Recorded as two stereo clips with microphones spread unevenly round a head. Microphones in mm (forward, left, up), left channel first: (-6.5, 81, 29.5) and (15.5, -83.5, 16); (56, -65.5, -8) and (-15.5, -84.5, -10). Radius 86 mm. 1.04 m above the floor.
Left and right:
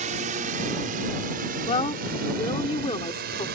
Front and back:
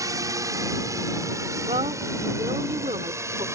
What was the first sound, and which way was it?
A drone, 125° right.